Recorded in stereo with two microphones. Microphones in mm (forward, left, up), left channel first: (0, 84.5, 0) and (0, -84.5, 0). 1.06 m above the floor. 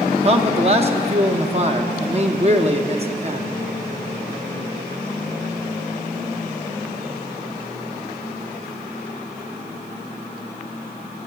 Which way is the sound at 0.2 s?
40° right (ahead or behind).